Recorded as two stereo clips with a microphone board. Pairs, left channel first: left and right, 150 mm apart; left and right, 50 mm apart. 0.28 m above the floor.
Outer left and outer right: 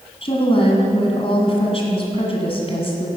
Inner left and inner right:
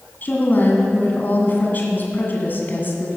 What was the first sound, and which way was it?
A woman speaking, 40° left (ahead or behind).